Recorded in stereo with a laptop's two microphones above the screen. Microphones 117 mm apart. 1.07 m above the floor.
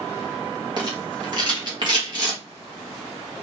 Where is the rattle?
40° right (ahead or behind), 1.6 m.